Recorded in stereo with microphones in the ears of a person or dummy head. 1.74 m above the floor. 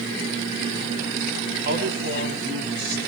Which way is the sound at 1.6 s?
55° right (ahead or behind).